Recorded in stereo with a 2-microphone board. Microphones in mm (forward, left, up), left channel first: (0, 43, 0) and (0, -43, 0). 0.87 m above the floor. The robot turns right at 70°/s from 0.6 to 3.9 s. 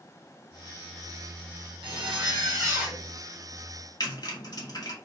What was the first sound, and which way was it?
A zipper, 100° right.